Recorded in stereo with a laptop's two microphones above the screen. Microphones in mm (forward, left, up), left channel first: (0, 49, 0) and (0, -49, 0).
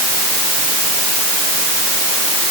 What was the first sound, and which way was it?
Only background noise.